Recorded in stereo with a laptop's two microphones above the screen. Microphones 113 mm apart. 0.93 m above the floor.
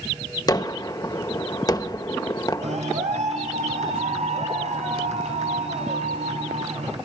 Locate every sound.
0.5 s a gunshot: 35° left (ahead or behind), 1.3 m
2.6 s a clap: 85° right, 7.5 m